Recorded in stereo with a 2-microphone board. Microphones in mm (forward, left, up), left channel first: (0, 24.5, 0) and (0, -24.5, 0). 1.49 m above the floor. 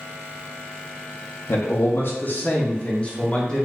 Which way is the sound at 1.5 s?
55° left (ahead or behind).